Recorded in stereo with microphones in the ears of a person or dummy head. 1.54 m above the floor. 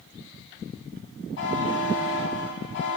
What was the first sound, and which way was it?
A buzzer, 65° left (ahead or behind).